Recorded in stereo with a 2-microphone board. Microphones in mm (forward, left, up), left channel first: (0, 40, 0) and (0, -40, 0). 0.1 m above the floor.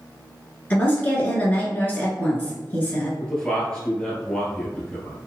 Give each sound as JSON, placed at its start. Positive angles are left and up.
{"t": 0.7, "sound": "a woman speaking", "side_deg": 20, "distance_m": 1.1}
{"t": 3.2, "sound": "a man speaking", "side_deg": 10, "distance_m": 1.7}